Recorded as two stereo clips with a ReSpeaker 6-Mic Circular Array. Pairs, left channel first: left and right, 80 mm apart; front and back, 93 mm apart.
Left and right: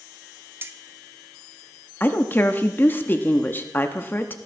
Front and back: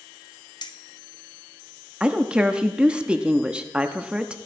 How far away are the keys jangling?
About 0.6 m.